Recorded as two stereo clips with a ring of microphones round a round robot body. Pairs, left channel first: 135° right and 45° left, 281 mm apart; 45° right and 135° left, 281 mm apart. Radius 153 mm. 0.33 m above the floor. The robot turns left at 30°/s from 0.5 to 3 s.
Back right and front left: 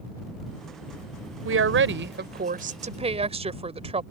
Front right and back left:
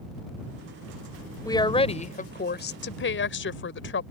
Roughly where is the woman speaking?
Ahead left.